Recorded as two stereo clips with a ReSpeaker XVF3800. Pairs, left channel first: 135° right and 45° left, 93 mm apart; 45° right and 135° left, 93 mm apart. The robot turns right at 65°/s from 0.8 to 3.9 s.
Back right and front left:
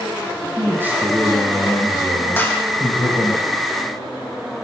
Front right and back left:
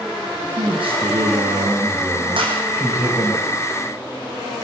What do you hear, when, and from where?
0.6 s a man speaking: 115° left, 7.5 m; by 3.4 s 80° right, 7.5 m
2.4 s a clap: 160° left, 8 m; by 2.6 s 175° left, 8 m